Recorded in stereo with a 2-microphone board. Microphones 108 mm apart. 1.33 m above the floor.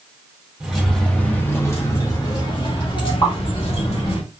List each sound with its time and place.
0.6 s keys jangling: 5° right (ahead or behind), 1.3 m; by 4.2 s 60° left (ahead or behind), 2.5 m
3.2 s a pop: 40° left (ahead or behind), 2 m